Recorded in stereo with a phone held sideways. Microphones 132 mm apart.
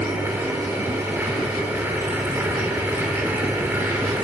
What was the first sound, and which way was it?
A machine running, 20° right (ahead or behind).